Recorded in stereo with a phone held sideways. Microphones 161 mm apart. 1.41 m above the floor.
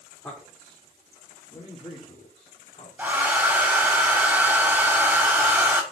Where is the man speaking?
15° left (ahead or behind), 3 m; by 2.9 s 40° left (ahead or behind), 3.5 m.